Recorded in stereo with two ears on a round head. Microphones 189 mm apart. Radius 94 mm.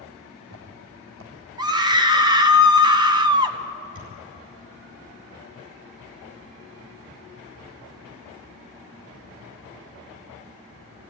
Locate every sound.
0.2 s footsteps: 70° right (ahead or behind), 4.5 m
1.6 s a scream: 20° right (ahead or behind), 1.2 m
4.0 s a thud: 45° right (ahead or behind), 6 m